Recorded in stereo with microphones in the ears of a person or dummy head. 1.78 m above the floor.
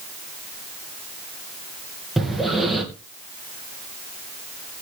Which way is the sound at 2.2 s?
Centre (ahead or behind).